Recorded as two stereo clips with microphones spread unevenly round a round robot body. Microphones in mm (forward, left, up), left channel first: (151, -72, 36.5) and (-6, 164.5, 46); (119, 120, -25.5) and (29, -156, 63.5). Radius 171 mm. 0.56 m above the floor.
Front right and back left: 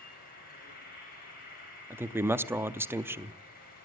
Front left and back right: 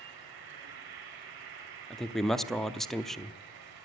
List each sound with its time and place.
0.0 s an insect: 120° right, 3.5 m
1.9 s a man speaking: 50° left, 0.6 m